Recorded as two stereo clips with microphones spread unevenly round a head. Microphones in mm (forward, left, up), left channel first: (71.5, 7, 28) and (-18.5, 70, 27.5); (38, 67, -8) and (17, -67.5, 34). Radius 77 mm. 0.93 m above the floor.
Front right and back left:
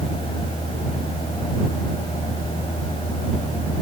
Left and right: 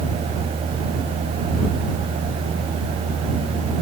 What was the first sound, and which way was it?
Only background noise.